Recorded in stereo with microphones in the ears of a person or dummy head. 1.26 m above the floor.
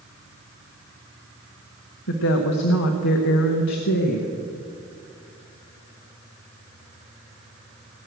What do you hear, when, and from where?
2.1 s a woman speaking: 70° left (ahead or behind), 1.0 m